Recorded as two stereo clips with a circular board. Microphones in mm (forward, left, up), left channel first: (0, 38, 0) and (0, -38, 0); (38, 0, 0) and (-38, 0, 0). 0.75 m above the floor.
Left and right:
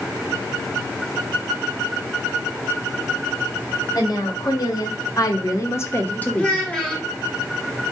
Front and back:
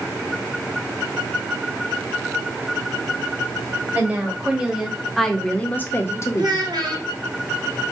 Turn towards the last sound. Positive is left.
turn(degrees=165)